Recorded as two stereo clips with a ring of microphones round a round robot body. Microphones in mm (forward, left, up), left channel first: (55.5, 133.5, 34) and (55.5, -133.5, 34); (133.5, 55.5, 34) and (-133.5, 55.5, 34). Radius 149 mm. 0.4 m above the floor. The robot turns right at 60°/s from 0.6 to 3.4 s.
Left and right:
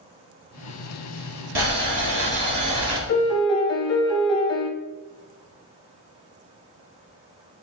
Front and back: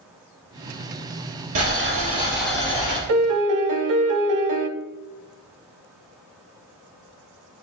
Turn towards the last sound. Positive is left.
turn(degrees=165)